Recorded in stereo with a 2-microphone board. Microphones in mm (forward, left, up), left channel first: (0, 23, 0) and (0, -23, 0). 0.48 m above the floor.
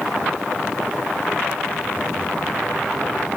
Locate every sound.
Only background noise.